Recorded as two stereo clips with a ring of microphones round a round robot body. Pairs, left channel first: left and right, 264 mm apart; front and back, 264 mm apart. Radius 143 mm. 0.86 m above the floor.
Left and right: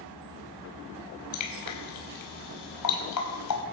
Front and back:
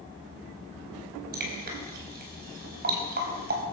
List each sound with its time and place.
1.3 s dripping: 120° left, 4.5 m